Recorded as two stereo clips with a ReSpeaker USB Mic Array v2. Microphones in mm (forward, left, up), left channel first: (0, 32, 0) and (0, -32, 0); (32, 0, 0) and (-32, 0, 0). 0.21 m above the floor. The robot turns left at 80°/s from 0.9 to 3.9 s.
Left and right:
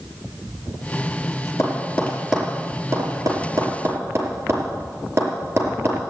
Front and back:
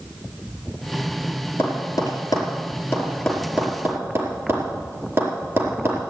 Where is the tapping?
45° left, 4.5 m; by 6.0 s 140° right, 4.5 m.